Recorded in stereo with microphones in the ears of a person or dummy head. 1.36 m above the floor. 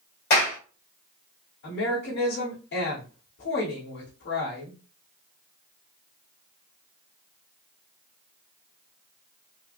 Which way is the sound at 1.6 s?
75° left (ahead or behind).